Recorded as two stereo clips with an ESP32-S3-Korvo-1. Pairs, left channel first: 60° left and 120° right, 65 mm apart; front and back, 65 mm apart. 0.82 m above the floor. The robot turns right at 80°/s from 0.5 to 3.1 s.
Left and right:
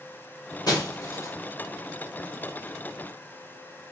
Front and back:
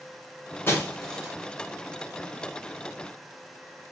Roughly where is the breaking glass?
Ahead left.